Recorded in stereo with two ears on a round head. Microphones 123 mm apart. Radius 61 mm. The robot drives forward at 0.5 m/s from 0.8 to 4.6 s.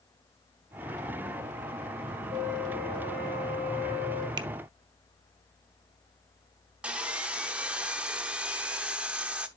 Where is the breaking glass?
I don't hear breaking glass.